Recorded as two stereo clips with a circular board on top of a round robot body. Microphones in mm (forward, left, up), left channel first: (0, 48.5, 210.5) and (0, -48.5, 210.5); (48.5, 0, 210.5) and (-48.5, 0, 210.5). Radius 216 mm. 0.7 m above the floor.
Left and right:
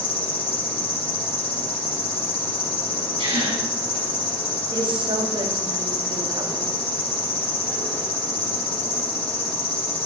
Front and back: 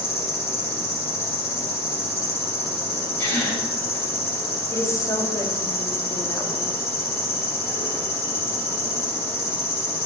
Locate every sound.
0.0 s an insect: 65° left, 2.5 m
3.2 s a gasp: 65° right, 5.5 m
4.7 s a woman speaking: 55° right, 1.5 m